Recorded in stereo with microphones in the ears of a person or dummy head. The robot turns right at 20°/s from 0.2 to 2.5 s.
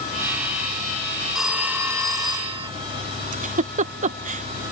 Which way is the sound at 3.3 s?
40° right (ahead or behind).